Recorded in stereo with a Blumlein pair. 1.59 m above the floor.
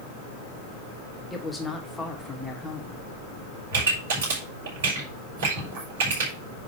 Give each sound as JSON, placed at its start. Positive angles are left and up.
{"t": 1.3, "sound": "a woman speaking", "azimuth_deg": 5, "distance_m": 3.0}
{"t": 3.7, "sound": "a pop", "azimuth_deg": -55, "distance_m": 5.5}